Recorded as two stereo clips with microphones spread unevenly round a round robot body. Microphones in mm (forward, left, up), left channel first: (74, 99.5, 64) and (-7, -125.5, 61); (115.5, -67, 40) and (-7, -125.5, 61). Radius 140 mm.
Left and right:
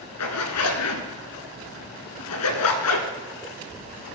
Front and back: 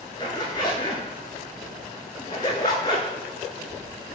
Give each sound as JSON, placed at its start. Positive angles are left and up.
{"t": 0.2, "sound": "a zipper", "azimuth_deg": 105, "distance_m": 1.1}